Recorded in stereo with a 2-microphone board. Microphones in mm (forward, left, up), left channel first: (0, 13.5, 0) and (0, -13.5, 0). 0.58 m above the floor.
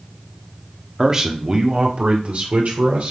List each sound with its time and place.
1.0 s a man speaking: 15° right (ahead or behind), 1.3 m; by 3.1 s 65° right (ahead or behind), 2.5 m